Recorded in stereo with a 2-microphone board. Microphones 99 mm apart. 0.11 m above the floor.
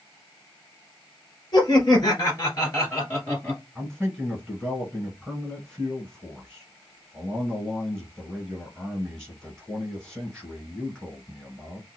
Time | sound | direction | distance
1.5 | laughter | 45° left (ahead or behind) | 1.9 m
3.8 | a man speaking | 5° left (ahead or behind) | 1.8 m